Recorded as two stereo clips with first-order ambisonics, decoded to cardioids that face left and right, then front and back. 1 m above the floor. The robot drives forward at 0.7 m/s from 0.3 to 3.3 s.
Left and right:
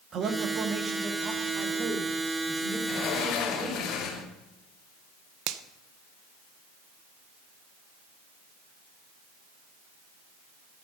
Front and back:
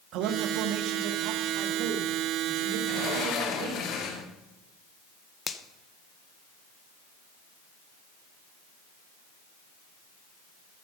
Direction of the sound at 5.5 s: 70° right.